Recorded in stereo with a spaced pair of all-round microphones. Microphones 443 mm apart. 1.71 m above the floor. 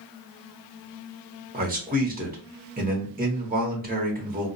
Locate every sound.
1.5 s a man speaking: 20° right (ahead or behind), 0.9 m